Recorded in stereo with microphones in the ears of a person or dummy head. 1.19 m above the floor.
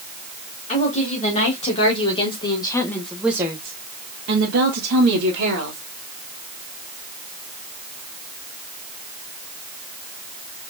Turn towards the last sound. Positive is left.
turn(degrees=-75)  # may be behind; listen again after turning